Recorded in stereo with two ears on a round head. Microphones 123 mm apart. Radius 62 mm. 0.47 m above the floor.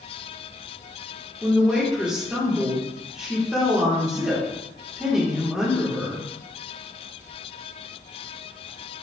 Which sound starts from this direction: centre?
A woman speaking, at 1.4 s.